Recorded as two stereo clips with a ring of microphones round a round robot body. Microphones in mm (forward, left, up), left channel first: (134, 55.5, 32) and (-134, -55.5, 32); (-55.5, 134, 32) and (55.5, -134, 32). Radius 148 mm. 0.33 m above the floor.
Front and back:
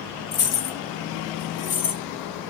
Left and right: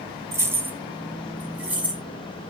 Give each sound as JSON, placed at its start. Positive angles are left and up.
{"t": 0.3, "sound": "keys jangling", "azimuth_deg": 10, "distance_m": 1.2}